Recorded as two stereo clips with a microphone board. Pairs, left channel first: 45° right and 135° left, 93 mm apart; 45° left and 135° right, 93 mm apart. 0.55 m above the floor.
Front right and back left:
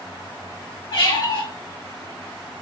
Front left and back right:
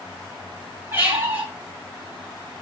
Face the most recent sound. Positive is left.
turn(degrees=-65)